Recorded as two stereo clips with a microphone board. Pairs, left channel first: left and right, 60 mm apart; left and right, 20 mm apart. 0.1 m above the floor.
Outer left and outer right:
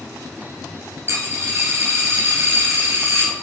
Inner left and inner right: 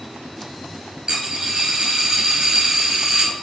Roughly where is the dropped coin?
Right.